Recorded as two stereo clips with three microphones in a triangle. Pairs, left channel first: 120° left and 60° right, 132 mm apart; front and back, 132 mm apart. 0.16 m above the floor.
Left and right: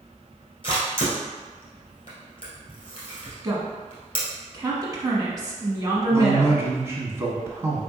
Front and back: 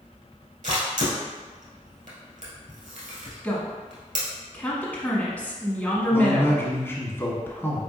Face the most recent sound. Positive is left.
turn(degrees=-35)